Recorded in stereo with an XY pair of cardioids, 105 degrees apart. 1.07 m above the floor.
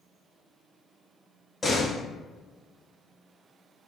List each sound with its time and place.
1.6 s a door slam: 15° left, 1.2 m